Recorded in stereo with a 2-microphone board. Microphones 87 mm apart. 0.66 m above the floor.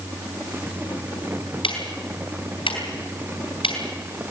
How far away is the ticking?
About 4.5 m.